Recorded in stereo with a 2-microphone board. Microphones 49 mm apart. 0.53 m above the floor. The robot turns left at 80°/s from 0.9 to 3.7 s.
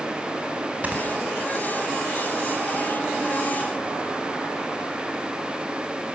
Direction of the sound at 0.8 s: 30° right (ahead or behind).